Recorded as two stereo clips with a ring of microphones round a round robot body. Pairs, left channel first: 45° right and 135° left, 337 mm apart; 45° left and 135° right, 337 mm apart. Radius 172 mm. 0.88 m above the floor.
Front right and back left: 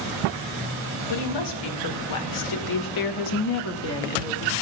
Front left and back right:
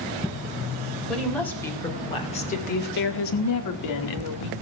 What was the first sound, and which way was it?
A woman speaking, 45° right.